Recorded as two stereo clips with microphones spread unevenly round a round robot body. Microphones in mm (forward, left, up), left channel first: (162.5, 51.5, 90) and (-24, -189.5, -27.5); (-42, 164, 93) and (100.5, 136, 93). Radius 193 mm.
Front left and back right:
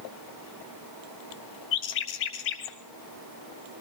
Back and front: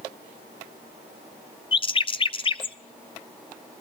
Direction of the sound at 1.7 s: 110° left.